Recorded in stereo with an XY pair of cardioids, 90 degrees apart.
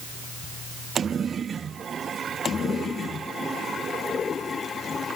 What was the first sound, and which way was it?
Only background noise.